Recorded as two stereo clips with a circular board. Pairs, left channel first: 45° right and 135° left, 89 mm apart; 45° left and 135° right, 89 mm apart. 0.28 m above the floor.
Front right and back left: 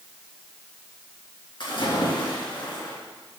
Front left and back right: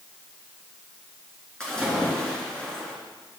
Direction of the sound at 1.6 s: 35° right.